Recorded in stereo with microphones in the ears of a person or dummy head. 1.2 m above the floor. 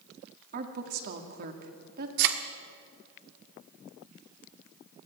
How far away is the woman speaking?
About 2 m.